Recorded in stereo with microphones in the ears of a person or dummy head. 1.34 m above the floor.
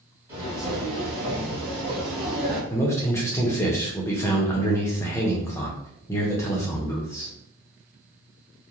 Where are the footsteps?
15° right (ahead or behind), 1.4 m; by 2.6 s 35° right (ahead or behind), 1.9 m.